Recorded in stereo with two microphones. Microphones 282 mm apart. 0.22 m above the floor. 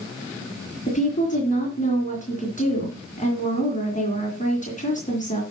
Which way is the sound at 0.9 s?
25° left (ahead or behind).